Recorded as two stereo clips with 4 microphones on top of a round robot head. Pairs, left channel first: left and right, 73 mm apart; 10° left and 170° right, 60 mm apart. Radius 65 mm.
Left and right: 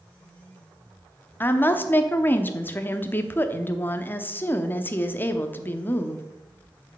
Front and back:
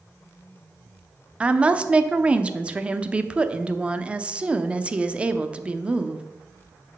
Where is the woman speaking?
130° left, 0.8 m.